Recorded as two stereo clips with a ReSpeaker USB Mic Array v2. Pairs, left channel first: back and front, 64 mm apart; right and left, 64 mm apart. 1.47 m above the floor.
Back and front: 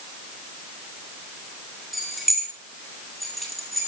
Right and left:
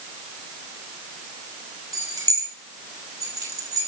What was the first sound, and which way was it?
Keys jangling, 90° left.